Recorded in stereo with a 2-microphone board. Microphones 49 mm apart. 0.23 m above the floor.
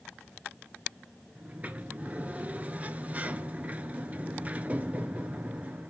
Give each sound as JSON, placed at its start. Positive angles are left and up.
{"t": 1.4, "sound": "a sliding door", "side_deg": -30, "distance_m": 0.6}